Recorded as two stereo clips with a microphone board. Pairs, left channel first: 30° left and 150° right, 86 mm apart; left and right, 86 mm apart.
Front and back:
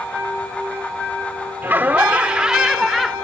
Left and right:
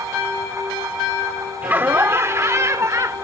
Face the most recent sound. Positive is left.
turn(degrees=-60)